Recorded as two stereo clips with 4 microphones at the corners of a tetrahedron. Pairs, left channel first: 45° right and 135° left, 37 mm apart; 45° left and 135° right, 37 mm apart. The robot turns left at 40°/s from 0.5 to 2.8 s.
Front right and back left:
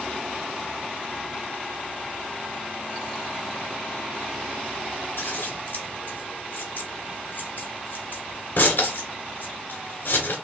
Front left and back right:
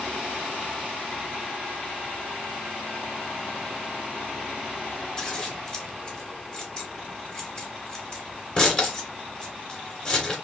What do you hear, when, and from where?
5.2 s scissors: 15° right, 1.8 m